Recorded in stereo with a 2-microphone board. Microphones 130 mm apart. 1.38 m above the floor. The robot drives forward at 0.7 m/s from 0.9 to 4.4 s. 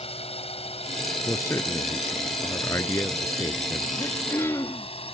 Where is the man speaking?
20° left (ahead or behind).